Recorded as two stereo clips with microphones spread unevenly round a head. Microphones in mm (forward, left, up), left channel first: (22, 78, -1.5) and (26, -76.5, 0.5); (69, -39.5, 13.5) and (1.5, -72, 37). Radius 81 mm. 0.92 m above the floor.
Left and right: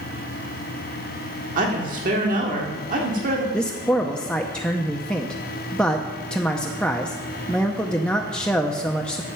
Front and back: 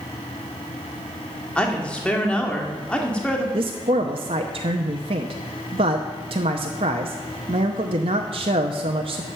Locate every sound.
1.6 s a woman speaking: 55° right, 1.8 m
3.5 s a man speaking: 175° left, 0.7 m